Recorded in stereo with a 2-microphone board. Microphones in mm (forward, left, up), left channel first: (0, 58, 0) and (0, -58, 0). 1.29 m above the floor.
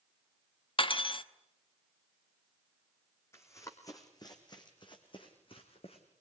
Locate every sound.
0.8 s cutlery clinking: 50° left (ahead or behind), 0.9 m
3.3 s running footsteps: 20° left (ahead or behind), 3 m; by 6.0 s 55° left (ahead or behind), 3.5 m